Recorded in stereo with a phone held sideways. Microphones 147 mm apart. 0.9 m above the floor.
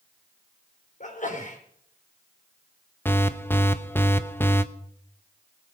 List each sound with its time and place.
1.0 s a sneeze: 60° left (ahead or behind), 4 m
3.0 s an alarm: 15° left (ahead or behind), 0.8 m